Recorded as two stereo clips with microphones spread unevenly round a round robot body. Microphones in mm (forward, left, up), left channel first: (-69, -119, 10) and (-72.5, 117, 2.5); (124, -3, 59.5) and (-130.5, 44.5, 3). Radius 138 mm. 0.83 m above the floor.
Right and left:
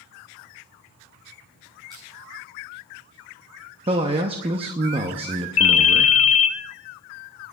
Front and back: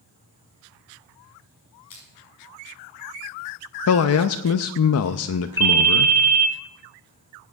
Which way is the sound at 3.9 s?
25° left.